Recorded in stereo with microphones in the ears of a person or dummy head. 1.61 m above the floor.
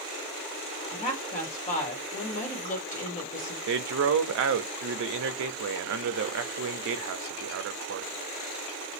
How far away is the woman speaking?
About 1.5 m.